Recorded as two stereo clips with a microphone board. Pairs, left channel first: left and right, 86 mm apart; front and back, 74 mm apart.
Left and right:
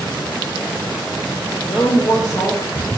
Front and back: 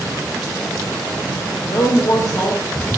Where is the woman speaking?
40° left, 0.8 m.